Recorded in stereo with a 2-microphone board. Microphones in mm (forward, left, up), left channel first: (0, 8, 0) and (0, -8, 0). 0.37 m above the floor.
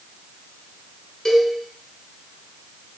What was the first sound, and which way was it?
A cowbell, 45° left (ahead or behind).